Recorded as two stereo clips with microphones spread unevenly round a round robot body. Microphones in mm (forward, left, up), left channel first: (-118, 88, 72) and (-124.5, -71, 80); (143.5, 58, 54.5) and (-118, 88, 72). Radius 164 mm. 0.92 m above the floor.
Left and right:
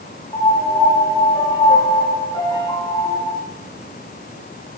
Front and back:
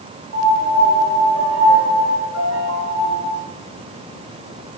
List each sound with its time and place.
0.3 s a piano: 145° left, 1.5 m